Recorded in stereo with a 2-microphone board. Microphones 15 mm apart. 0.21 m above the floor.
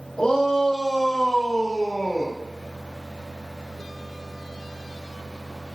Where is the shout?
70° left (ahead or behind), 10 m; by 2.4 s 60° left (ahead or behind), 7.5 m.